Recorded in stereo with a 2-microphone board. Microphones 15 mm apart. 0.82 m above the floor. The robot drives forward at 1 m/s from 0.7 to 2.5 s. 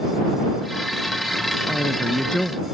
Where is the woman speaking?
85° left.